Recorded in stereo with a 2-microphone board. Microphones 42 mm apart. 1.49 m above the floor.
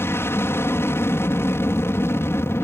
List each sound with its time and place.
0.0 s an aircraft: 65° left (ahead or behind)